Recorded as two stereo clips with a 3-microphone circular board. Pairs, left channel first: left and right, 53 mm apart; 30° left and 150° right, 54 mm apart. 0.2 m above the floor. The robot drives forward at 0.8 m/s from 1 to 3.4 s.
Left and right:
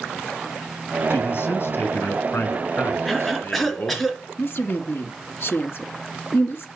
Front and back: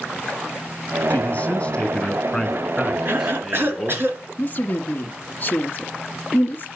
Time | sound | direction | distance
1.1 | a man speaking | 75° left | 2.5 m
3.0 | a cough | straight behind | 3 m
4.4 | a woman speaking | 75° left | 1.7 m